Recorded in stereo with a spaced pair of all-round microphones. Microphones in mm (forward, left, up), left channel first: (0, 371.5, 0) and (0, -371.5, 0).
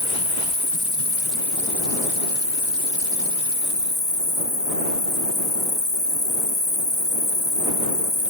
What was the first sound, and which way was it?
An insect, 35° left (ahead or behind).